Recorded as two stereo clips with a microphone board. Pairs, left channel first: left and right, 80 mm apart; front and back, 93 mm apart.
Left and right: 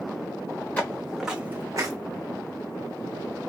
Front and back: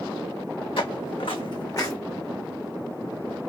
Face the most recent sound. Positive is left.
turn(degrees=-55)